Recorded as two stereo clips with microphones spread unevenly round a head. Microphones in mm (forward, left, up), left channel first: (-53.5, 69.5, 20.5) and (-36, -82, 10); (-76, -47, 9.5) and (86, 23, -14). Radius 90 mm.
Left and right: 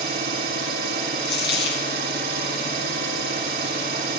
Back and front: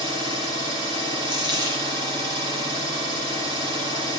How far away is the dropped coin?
About 3.5 m.